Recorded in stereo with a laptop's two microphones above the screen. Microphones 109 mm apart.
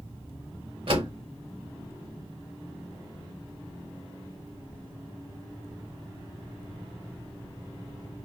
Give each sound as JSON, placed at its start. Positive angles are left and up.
{"t": 0.9, "sound": "a door slam", "side_deg": -60, "distance_m": 2.0}